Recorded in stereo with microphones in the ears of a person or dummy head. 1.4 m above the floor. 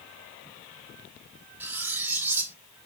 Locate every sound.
1.6 s cutlery clinking: 10° right (ahead or behind), 1.1 m